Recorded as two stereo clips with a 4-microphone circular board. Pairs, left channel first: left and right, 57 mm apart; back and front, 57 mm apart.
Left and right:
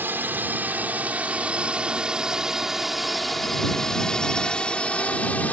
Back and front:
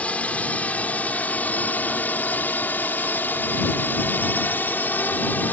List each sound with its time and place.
0.0 s a drone: 125° right; by 5.5 s 140° left